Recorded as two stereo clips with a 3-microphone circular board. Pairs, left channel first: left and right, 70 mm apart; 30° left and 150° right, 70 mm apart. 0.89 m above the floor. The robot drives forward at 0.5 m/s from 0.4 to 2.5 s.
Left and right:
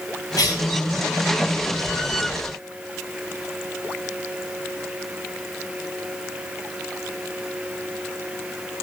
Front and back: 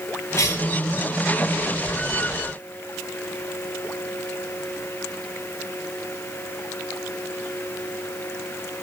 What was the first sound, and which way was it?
A cough, 70° left.